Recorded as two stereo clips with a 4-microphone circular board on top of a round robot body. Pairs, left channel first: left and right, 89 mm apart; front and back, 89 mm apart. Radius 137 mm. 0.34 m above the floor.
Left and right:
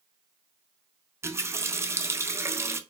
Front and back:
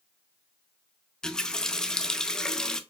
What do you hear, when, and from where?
1.2 s a running tap: 75° right, 0.6 m